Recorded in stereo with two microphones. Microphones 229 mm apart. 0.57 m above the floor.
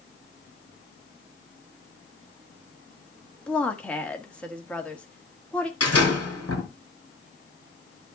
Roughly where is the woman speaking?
Centre.